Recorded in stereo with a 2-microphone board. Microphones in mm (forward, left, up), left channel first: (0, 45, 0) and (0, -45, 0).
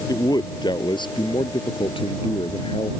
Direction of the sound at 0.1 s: 45° left (ahead or behind).